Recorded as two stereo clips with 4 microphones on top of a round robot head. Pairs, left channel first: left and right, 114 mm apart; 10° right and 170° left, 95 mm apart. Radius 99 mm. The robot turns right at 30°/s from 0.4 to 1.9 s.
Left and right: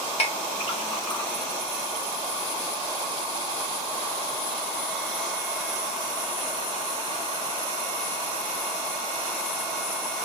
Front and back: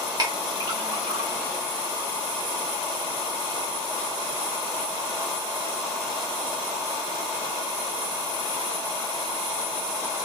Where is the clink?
125° left, 1.7 m; by 1.3 s 150° left, 1.7 m.